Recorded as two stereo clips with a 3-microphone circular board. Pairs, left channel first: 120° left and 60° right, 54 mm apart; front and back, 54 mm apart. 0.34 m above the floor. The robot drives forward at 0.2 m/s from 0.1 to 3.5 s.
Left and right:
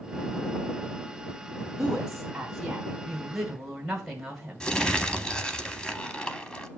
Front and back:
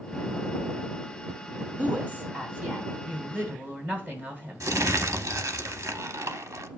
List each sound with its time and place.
1.8 s a woman speaking: 135° right, 1.6 m; by 4.7 s 145° right, 1.8 m
4.6 s crumpling: 170° right, 0.6 m